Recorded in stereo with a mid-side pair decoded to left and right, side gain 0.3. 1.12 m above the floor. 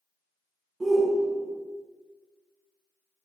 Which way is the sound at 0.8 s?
40° right.